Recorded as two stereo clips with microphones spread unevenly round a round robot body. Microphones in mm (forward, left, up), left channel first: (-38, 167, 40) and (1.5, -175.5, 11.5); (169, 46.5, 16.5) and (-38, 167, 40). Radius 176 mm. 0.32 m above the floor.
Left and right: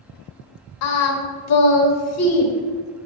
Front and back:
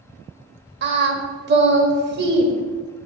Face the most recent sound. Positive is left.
turn(degrees=125)